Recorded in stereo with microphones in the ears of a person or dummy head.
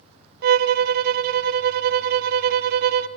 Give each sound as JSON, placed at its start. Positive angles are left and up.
{"t": 0.4, "sound": "a violin", "side_deg": -60, "distance_m": 0.8}